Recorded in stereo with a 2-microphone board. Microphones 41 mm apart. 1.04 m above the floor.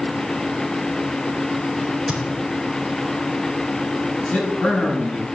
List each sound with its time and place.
1.8 s a crack: 10° right (ahead or behind), 4 m
4.2 s a man speaking: 30° left (ahead or behind), 7 m